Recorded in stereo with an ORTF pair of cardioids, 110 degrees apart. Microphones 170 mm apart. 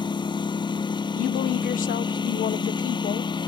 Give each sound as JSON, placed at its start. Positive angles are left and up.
{"t": 0.0, "sound": "a lawn mower", "azimuth_deg": 30}
{"t": 1.1, "sound": "a woman speaking", "azimuth_deg": 55}